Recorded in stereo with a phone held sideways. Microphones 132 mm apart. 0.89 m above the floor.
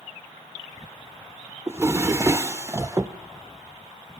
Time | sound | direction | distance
1.7 | a drawer | 20° right (ahead or behind) | 0.7 m